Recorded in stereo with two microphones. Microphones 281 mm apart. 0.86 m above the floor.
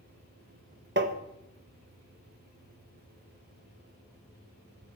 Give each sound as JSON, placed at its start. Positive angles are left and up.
{"t": 1.0, "sound": "tapping", "side_deg": -35, "distance_m": 0.8}